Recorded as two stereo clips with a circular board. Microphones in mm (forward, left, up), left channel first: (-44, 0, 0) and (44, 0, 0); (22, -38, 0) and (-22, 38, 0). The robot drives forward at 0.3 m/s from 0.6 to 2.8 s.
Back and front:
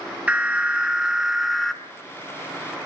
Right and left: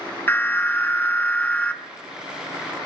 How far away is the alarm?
About 1.2 m.